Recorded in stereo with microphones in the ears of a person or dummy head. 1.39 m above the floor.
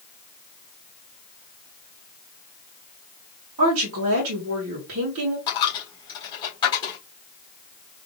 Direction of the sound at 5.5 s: 25° left (ahead or behind).